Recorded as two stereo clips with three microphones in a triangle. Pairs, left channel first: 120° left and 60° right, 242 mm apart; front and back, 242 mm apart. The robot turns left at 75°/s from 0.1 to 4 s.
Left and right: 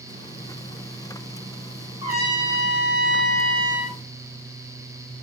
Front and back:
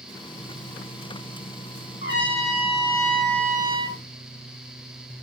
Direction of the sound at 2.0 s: 5° left.